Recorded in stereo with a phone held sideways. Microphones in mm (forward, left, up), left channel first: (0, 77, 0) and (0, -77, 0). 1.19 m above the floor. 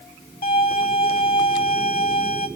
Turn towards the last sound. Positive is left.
turn(degrees=75)  # may be behind; listen again after turning